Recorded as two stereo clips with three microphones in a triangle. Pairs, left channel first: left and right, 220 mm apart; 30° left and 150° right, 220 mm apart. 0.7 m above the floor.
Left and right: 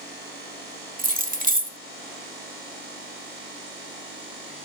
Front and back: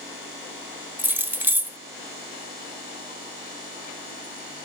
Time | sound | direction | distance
1.0 | keys jangling | 70° right | 0.6 m